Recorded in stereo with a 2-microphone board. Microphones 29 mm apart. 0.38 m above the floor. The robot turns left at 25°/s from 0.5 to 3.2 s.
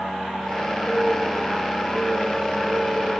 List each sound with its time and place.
0.9 s a bird: 20° left, 5 m; by 3.1 s 35° right, 5 m